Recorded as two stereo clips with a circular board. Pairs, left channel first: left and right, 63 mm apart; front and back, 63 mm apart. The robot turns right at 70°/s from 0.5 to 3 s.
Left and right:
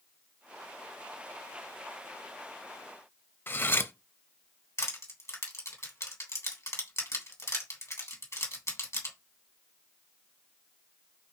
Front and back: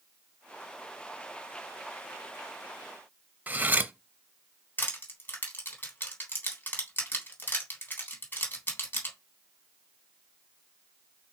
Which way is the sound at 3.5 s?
130° left.